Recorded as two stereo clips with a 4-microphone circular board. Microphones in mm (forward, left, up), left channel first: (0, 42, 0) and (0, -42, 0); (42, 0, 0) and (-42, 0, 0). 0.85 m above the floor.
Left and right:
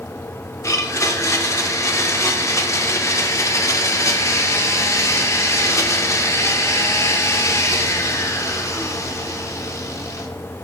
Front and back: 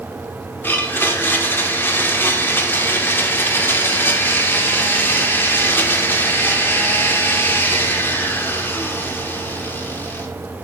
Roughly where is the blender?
Ahead left.